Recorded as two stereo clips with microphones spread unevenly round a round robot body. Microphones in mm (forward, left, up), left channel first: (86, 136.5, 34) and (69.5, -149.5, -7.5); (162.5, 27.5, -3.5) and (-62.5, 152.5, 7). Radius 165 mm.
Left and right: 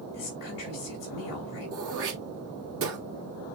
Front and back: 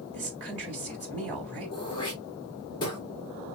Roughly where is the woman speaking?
Behind left.